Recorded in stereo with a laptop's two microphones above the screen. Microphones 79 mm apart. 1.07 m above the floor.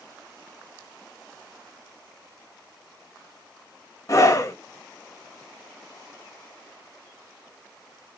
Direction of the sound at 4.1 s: 40° left (ahead or behind).